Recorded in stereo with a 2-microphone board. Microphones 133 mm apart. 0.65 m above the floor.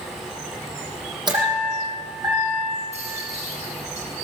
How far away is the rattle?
About 7.5 m.